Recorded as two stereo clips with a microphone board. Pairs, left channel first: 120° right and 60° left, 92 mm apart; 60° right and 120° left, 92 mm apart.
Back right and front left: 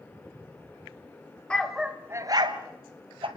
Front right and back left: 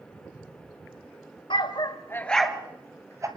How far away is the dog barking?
About 1.3 m.